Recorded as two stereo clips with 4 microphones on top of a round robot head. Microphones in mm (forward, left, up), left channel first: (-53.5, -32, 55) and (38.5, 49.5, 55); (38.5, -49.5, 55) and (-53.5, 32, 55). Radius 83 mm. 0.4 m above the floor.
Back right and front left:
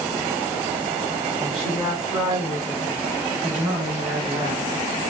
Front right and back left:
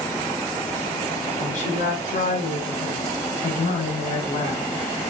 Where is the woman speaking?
30° right, 3.5 m; by 4.7 s straight ahead, 4.5 m.